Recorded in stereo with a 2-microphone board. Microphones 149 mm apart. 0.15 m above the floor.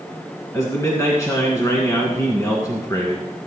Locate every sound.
0.5 s a man speaking: 25° left (ahead or behind), 1.9 m